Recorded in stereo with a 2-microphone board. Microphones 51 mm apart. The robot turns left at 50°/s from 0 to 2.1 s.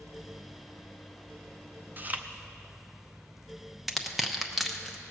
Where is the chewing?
40° right (ahead or behind), 0.6 m; by 2.2 s 30° right (ahead or behind), 0.6 m.